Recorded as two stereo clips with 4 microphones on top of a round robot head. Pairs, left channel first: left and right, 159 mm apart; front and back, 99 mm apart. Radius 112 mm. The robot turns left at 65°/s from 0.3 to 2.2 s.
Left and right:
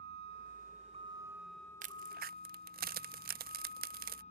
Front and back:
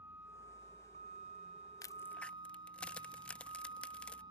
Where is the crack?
55° right; by 4.2 s 80° right.